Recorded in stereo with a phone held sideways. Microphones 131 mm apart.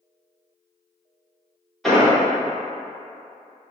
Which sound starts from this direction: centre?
An explosion, at 1.8 s.